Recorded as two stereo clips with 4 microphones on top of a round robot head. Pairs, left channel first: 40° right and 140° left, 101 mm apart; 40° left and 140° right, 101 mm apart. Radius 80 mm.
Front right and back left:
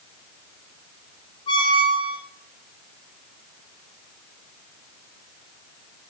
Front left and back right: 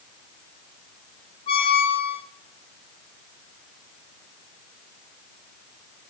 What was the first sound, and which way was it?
A squeak, 5° left.